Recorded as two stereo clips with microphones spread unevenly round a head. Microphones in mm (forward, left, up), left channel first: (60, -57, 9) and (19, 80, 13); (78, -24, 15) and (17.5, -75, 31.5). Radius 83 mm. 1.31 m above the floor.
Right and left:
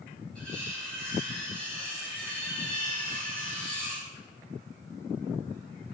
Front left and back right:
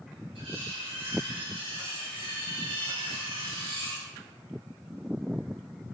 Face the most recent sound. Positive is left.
turn(degrees=-160)